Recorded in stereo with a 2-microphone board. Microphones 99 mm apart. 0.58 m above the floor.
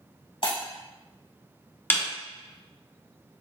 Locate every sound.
0.4 s breaking glass: 60° left (ahead or behind), 1.1 m
1.9 s a snare drum: 20° left (ahead or behind), 0.7 m